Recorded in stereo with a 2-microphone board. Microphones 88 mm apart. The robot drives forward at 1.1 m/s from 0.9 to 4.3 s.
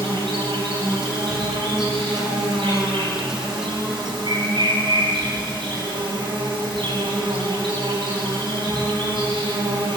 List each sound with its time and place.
0.0 s an insect: 85° right, 8.5 m; by 10.0 s 65° right (ahead or behind), 9.5 m